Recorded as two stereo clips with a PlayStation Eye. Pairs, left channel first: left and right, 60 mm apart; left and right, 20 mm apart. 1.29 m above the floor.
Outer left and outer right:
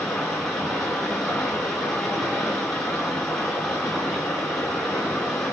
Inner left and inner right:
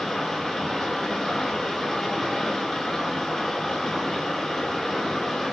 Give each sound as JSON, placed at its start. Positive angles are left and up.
{"t": 0.0, "sound": "running water", "side_deg": 5, "distance_m": 5.5}